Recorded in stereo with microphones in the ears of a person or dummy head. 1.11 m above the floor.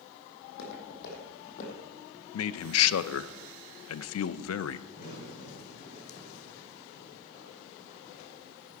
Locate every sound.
0.4 s footsteps: 60° left (ahead or behind), 3.5 m; by 2.2 s 30° left (ahead or behind), 2.5 m
2.3 s a man speaking: 80° left, 0.5 m
4.9 s a crack: 60° left (ahead or behind), 4.5 m